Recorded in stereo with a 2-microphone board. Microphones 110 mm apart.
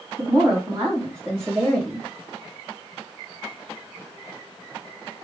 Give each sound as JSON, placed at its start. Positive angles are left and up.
{"t": 0.2, "sound": "a woman speaking", "side_deg": -25, "distance_m": 1.9}